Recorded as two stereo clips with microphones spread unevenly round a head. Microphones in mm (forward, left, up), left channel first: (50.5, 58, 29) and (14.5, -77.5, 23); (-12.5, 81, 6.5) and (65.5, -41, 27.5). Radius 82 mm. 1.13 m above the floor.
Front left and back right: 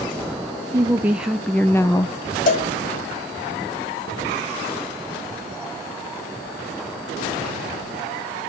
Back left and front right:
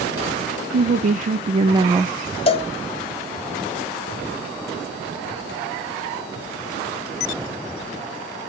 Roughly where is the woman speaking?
Ahead right.